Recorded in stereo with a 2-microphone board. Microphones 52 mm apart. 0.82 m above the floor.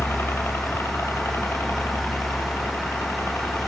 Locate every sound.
0.0 s a helicopter: 55° left (ahead or behind); by 3.7 s 65° left (ahead or behind)